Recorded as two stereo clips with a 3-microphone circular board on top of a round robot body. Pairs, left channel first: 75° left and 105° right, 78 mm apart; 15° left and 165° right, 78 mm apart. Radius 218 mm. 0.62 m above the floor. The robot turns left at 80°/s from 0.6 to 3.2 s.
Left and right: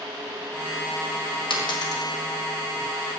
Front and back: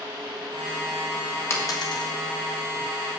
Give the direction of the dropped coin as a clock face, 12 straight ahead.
10 o'clock.